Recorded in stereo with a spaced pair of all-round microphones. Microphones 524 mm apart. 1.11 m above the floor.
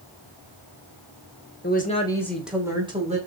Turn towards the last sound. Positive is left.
turn(degrees=-15)  # may be behind; listen again after turning